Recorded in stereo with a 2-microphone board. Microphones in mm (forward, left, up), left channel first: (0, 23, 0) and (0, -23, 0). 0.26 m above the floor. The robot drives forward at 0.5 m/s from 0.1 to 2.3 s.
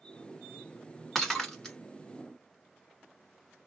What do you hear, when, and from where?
1.1 s breaking glass: 10° left (ahead or behind), 1.3 m